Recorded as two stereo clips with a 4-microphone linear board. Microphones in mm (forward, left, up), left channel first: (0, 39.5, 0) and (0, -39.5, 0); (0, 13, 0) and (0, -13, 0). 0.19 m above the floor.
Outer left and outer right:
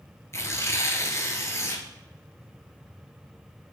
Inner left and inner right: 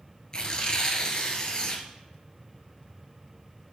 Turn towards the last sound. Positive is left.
turn(degrees=35)  # may be behind; listen again after turning